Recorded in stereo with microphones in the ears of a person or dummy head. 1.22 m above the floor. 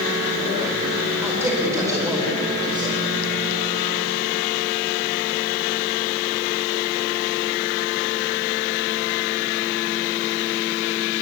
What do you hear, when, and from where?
1.2 s a man speaking: 15° right (ahead or behind), 5 m; by 3.0 s 25° right (ahead or behind), 5 m